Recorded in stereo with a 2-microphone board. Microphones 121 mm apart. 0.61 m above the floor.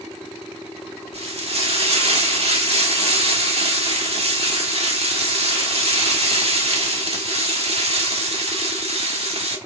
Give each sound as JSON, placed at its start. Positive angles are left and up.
{"t": 1.1, "sound": "frying", "side_deg": -55, "distance_m": 1.5}